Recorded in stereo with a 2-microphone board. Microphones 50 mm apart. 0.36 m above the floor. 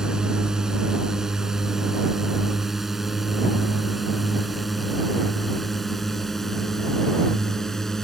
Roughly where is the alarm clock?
No alarm clock in this recording.